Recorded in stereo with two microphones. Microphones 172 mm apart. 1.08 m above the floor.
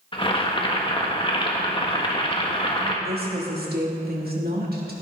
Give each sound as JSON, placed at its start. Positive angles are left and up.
{"t": 0.1, "sound": "boiling", "side_deg": 30, "distance_m": 1.5}
{"t": 3.0, "sound": "a woman speaking", "side_deg": -65, "distance_m": 2.5}